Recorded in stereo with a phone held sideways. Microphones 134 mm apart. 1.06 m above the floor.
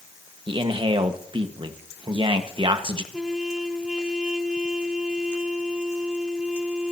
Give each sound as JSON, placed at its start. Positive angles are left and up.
{"t": 0.5, "sound": "a man speaking", "side_deg": -40, "distance_m": 1.5}
{"t": 3.1, "sound": "a trumpet", "side_deg": -5, "distance_m": 2.0}